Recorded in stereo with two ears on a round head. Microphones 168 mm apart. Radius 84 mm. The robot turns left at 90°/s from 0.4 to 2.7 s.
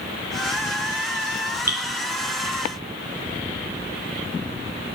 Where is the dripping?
15° right (ahead or behind), 0.6 m; by 1.8 s 25° right (ahead or behind), 0.6 m.